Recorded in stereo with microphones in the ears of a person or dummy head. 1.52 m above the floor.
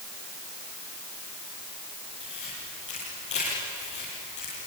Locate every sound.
2.2 s a camera shutter: 40° left (ahead or behind), 7.5 m